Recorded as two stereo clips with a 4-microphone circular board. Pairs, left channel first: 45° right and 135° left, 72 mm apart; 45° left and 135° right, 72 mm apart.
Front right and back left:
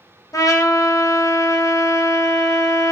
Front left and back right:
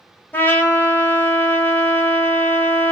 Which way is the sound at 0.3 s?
15° right.